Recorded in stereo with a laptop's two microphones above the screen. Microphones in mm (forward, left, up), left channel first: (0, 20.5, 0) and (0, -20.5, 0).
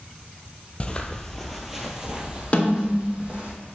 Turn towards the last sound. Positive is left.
turn(degrees=35)  # may be behind; listen again after turning